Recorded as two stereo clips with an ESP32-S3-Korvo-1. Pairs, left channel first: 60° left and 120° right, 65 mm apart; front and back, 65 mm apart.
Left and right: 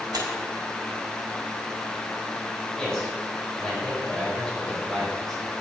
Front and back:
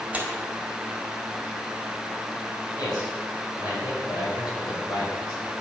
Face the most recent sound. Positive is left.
turn(degrees=-20)